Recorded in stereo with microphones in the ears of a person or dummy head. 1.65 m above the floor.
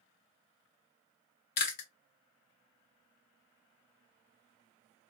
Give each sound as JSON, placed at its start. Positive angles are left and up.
{"t": 1.6, "sound": "chewing", "side_deg": 50, "distance_m": 0.8}